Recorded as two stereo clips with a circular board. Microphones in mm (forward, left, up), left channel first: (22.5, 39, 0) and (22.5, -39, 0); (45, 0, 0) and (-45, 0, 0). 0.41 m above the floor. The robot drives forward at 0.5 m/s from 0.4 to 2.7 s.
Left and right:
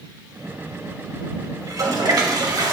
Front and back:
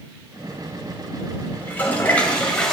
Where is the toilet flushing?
60° right, 2 m; by 2.7 s 80° right, 1.9 m.